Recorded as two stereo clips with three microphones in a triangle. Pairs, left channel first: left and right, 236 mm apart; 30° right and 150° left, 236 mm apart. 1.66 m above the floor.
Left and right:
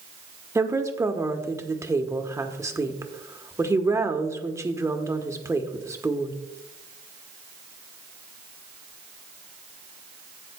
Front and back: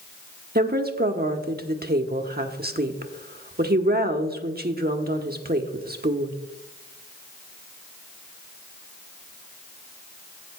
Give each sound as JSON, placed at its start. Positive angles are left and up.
{"t": 0.6, "sound": "a woman speaking", "azimuth_deg": -165, "distance_m": 1.0}